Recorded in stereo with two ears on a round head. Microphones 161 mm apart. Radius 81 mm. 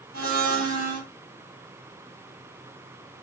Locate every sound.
0.1 s a blender: 50° right (ahead or behind), 1.1 m